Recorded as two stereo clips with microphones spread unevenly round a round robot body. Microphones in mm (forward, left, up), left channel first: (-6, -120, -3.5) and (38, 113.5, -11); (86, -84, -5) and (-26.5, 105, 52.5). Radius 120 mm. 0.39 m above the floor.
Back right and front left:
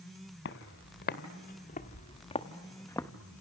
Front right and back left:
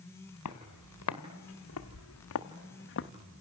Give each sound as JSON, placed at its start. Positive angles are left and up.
{"t": 0.5, "sound": "footsteps", "azimuth_deg": -65, "distance_m": 1.9}